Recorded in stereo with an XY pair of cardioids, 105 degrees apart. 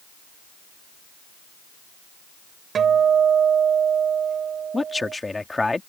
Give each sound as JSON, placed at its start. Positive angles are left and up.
{"t": 2.8, "sound": "a guitar", "azimuth_deg": -50}
{"t": 4.7, "sound": "a man speaking", "azimuth_deg": 15}